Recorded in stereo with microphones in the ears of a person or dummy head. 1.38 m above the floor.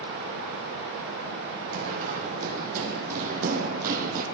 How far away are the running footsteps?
About 4 m.